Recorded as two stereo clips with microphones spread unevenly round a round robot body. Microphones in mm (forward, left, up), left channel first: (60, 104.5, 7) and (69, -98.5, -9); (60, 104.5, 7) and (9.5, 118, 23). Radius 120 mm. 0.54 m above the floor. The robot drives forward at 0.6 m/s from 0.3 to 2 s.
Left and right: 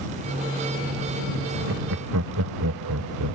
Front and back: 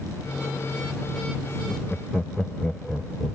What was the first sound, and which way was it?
Laughter, 90° right.